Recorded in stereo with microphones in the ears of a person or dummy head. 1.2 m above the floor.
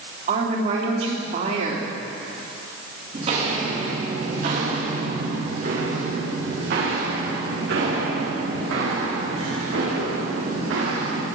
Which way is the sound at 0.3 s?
45° right (ahead or behind).